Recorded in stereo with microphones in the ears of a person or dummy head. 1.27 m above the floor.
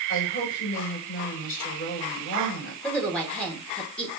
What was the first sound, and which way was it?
A woman speaking, 50° left (ahead or behind).